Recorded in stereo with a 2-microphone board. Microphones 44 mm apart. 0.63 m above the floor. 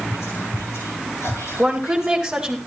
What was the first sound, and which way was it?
Whispering, 80° left.